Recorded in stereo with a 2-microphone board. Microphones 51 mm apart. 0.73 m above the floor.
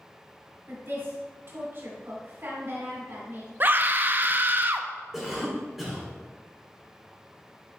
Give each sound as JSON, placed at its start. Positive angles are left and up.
{"t": 0.7, "sound": "a woman speaking", "side_deg": -50, "distance_m": 2.5}
{"t": 3.6, "sound": "a scream", "side_deg": -35, "distance_m": 0.5}
{"t": 5.1, "sound": "a cough", "side_deg": -5, "distance_m": 2.5}